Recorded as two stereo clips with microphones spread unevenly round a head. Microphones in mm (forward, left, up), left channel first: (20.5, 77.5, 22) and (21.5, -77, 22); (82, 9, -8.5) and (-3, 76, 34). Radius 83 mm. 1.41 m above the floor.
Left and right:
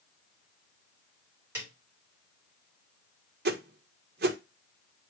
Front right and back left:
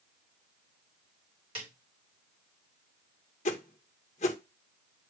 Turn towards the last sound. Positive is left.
turn(degrees=-70)